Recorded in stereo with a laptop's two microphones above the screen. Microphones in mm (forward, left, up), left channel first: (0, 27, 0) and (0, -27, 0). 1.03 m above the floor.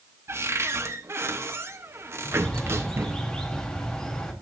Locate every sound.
0.3 s a cupboard door: 50° right (ahead or behind), 1.0 m
2.2 s a bird: 10° left (ahead or behind), 1.4 m